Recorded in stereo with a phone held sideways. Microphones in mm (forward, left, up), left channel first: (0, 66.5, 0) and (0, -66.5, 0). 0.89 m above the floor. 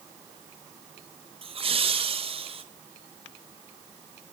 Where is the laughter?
45° right (ahead or behind), 0.6 m.